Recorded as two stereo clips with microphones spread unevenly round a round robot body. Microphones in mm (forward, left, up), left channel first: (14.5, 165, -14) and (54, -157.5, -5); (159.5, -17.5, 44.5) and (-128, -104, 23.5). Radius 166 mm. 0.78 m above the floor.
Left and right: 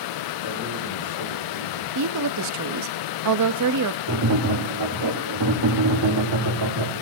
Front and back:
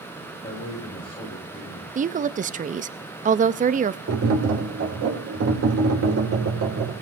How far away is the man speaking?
About 6 m.